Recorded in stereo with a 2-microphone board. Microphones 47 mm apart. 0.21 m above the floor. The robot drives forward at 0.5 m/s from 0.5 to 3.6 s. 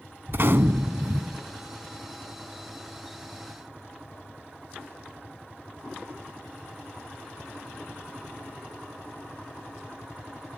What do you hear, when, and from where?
0.3 s a gunshot: 55° right (ahead or behind), 0.6 m; by 1.4 s 40° right (ahead or behind), 0.8 m